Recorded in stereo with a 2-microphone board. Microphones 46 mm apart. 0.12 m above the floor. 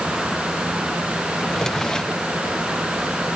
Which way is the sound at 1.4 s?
15° left (ahead or behind).